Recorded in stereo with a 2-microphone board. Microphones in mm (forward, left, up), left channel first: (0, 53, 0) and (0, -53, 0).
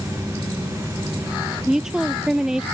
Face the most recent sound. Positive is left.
turn(degrees=-5)  # may be behind; listen again after turning